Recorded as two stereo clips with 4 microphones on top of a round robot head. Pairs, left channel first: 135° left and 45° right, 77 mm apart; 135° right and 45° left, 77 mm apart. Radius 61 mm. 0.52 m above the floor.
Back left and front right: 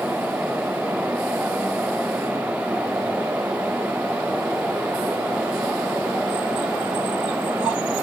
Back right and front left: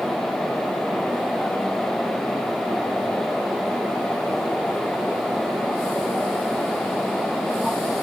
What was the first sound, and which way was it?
Only background noise.